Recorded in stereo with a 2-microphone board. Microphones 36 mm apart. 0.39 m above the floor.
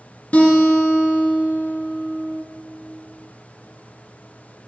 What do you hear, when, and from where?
0.3 s a guitar: 50° left (ahead or behind), 1.4 m